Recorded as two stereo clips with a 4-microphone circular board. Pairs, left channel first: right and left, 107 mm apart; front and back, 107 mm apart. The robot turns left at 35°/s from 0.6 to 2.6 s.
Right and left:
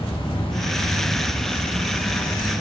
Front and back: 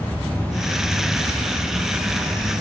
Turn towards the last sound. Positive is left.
turn(degrees=-140)